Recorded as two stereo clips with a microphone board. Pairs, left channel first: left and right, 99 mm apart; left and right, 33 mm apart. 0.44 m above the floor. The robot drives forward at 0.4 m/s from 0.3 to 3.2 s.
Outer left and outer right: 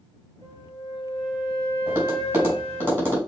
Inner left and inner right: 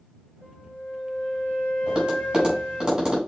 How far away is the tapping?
About 4 m.